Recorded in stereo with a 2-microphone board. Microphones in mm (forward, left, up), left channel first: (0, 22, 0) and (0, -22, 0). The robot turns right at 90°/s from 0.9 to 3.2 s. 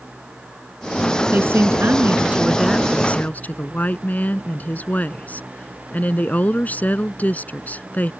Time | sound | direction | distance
1.3 | a woman speaking | 130° right | ?